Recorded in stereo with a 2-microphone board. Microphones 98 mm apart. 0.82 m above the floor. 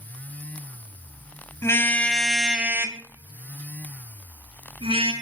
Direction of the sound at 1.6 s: 30° left (ahead or behind).